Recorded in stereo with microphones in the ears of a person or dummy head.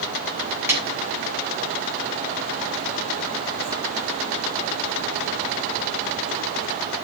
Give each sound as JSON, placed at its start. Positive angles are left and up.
{"t": 0.7, "sound": "a snare drum", "side_deg": -15, "distance_m": 9.0}